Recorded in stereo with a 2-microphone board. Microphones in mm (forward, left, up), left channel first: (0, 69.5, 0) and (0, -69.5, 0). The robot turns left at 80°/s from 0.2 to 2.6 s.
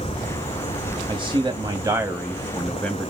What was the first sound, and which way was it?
A man speaking, 75° right.